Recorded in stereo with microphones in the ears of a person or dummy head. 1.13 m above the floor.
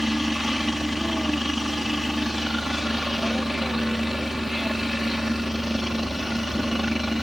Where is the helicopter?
Centre (ahead or behind).